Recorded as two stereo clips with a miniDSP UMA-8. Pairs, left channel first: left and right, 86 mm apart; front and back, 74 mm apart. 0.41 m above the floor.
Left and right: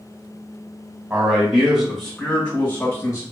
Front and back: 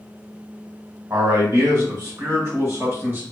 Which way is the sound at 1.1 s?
160° right.